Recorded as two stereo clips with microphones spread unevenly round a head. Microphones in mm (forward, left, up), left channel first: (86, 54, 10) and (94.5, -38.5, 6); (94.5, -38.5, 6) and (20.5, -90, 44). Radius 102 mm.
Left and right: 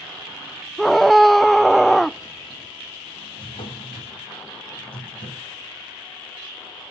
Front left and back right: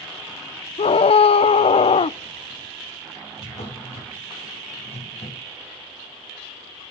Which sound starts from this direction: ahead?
A scream, at 0.8 s.